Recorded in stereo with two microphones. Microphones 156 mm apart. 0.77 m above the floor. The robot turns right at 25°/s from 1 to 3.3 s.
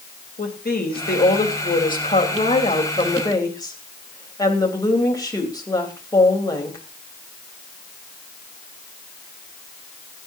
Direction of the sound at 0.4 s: 100° left.